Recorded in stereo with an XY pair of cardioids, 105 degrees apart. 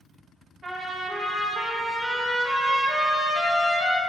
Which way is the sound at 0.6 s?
40° right.